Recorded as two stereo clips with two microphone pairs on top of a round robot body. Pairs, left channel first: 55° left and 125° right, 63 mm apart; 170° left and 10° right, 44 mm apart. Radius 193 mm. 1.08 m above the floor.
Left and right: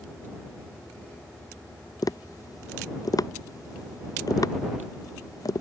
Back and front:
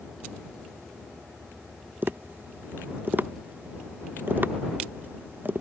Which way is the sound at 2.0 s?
35° left.